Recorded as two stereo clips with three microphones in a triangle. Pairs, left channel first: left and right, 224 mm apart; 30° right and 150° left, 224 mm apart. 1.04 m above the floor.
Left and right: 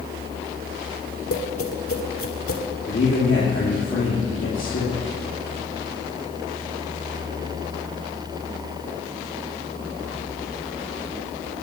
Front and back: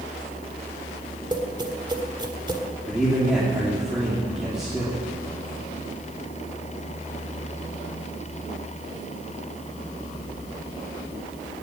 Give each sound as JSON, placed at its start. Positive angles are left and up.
{"t": 1.3, "sound": "tapping", "azimuth_deg": 80, "distance_m": 1.6}
{"t": 2.9, "sound": "a man speaking", "azimuth_deg": 60, "distance_m": 3.0}